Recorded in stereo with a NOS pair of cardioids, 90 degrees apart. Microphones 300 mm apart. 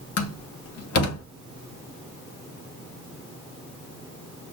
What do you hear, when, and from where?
0.2 s a door slam: 60° left, 1.2 m